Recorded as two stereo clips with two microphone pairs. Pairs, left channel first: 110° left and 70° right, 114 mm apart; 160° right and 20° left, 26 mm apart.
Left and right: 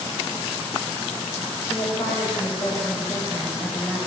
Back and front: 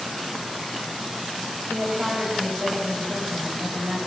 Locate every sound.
1.7 s a woman speaking: 45° left, 7.5 m; by 4.0 s 30° left, 7 m